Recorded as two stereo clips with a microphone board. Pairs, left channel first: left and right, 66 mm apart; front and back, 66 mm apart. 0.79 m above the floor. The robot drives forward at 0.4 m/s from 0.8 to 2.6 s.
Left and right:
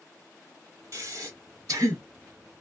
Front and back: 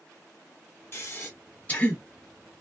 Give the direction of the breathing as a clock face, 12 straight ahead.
2 o'clock.